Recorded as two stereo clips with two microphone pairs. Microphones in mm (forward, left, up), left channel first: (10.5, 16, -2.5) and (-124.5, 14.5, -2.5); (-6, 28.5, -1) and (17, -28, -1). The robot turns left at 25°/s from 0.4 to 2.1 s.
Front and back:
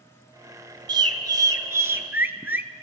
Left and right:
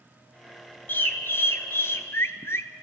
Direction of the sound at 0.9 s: 150° left.